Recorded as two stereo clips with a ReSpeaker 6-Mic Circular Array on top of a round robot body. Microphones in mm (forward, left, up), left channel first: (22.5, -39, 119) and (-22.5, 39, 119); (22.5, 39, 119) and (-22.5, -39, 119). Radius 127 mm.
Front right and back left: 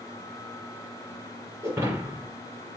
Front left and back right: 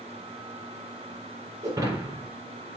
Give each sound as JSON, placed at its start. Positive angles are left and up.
{"t": 1.6, "sound": "breaking glass", "azimuth_deg": 180, "distance_m": 5.0}